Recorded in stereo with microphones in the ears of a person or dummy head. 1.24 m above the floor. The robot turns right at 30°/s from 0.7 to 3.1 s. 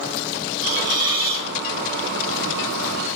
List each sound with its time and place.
0.6 s a hiss: 15° right (ahead or behind), 1.5 m; by 1.5 s 35° right (ahead or behind), 1.5 m